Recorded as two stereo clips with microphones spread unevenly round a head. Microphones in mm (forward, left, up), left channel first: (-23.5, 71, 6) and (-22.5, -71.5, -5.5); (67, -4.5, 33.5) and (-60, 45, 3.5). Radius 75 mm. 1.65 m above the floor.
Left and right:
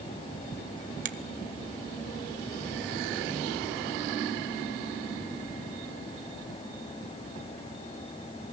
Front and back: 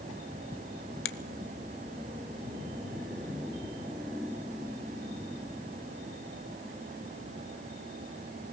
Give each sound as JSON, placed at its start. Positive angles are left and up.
{"t": 1.1, "sound": "a finger snap", "azimuth_deg": -45, "distance_m": 0.9}